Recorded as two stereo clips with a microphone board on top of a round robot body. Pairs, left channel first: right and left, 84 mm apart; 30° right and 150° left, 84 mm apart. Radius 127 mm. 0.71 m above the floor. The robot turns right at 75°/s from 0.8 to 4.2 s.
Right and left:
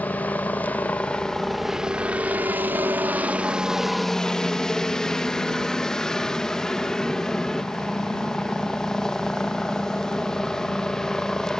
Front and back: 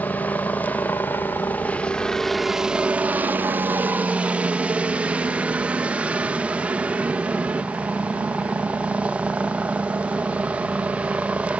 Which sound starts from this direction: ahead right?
A helicopter, at 0.0 s.